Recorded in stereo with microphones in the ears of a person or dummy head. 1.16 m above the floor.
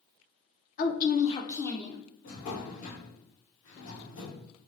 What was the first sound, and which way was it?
A woman speaking, 45° left (ahead or behind).